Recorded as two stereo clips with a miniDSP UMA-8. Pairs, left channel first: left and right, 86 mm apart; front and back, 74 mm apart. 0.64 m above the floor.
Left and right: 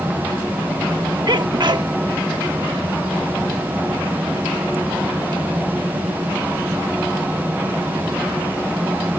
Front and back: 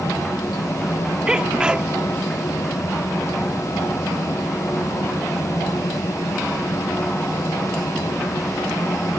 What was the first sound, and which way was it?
A sneeze, 105° right.